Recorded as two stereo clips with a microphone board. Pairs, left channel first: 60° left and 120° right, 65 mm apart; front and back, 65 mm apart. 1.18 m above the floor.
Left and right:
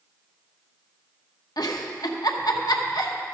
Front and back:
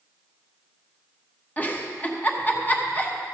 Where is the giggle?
65° left, 0.9 m.